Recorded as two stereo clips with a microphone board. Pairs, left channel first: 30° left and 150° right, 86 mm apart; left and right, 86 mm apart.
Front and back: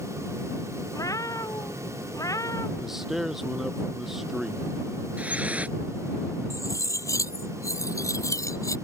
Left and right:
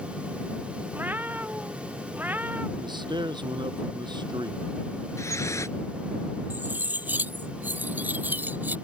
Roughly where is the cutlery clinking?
Ahead.